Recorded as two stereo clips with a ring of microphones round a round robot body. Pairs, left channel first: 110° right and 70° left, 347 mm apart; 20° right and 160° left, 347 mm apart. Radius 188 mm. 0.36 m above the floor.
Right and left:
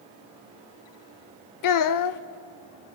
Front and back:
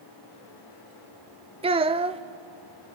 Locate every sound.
1.6 s a child speaking: 130° right, 0.7 m